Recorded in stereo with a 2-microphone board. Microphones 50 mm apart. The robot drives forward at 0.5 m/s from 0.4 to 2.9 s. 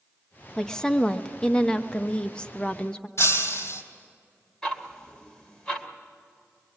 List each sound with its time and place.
0.6 s a woman speaking: 10° left (ahead or behind), 1.1 m; by 3.1 s 20° left (ahead or behind), 0.8 m
3.2 s breaking glass: 60° left (ahead or behind), 3 m
4.6 s ticking: 15° left (ahead or behind), 2 m